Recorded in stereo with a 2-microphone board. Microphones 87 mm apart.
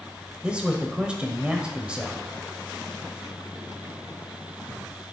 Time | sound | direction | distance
0.4 | a man speaking | 15° right (ahead or behind) | 1.0 m